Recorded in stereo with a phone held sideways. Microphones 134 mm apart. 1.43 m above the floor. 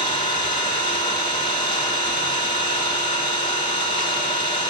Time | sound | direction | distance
0.0 | an engine running | 40° left (ahead or behind) | 4.5 m